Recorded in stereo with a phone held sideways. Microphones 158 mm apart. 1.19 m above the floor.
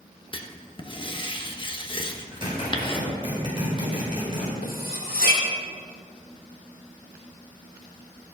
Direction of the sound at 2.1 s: 35° right (ahead or behind).